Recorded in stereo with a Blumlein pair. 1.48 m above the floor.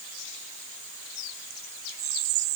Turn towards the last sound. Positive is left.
No sound to turn to.